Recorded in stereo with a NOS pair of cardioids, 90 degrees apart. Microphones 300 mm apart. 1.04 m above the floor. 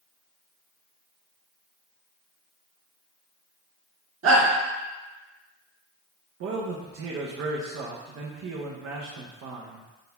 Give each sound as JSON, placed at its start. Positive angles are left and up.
{"t": 4.2, "sound": "a shout", "azimuth_deg": -45, "distance_m": 2.0}
{"t": 6.4, "sound": "a man speaking", "azimuth_deg": -55, "distance_m": 0.7}